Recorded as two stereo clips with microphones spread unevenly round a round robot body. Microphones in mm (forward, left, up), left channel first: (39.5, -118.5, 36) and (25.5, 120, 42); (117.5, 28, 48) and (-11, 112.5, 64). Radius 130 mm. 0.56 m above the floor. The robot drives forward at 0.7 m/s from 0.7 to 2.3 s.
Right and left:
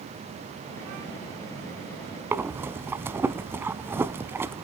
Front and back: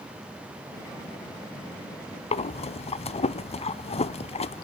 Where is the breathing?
15° left, 0.7 m.